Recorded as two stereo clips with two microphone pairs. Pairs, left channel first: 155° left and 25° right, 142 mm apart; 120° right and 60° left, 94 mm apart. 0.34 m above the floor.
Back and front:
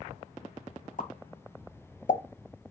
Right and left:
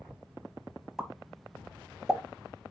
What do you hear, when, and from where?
1.0 s a pop: 145° left, 1.0 m